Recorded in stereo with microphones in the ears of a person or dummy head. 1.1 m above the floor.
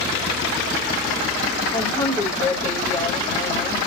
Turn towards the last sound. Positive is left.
turn(degrees=10)  # may be behind; listen again after turning